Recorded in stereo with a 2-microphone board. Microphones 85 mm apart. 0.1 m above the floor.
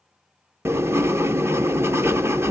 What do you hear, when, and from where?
0.7 s writing: 30° right (ahead or behind), 0.5 m